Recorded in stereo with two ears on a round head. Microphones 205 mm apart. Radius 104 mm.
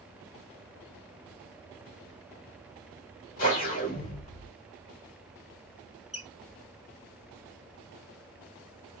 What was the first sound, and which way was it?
A whoosh, 40° left (ahead or behind).